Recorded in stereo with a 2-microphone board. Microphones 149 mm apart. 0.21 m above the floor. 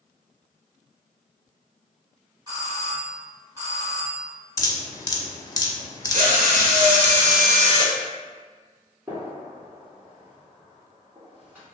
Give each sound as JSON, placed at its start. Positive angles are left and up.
{"t": 2.5, "sound": "a doorbell", "side_deg": -20, "distance_m": 1.7}
{"t": 4.6, "sound": "dripping", "side_deg": 25, "distance_m": 0.6}
{"t": 6.1, "sound": "a drill", "side_deg": -60, "distance_m": 0.7}
{"t": 9.1, "sound": "a gunshot", "side_deg": -10, "distance_m": 1.8}